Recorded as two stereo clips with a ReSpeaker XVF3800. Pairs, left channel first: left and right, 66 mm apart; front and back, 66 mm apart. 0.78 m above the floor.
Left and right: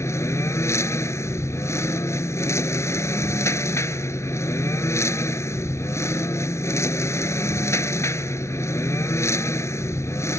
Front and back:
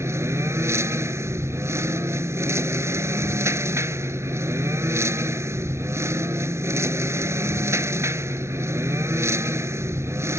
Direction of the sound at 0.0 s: 135° left.